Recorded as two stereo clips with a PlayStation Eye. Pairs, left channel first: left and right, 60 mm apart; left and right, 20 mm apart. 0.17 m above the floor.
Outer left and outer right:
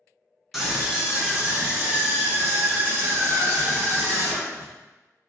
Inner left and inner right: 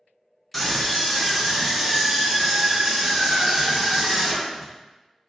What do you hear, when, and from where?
0.5 s a scream: 5° right (ahead or behind), 1.5 m; by 4.7 s 45° right (ahead or behind), 3 m